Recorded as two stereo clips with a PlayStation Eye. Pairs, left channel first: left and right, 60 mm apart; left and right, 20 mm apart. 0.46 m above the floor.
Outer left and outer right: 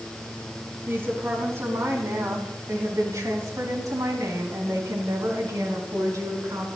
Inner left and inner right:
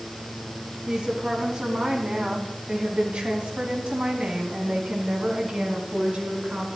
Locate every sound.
0.9 s a woman speaking: 45° right (ahead or behind), 4 m; by 6.7 s 65° right (ahead or behind), 4.5 m